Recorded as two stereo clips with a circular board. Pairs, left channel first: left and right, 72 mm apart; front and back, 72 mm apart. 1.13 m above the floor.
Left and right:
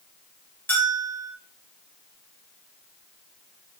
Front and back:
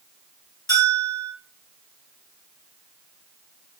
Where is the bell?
30° left, 1.5 m.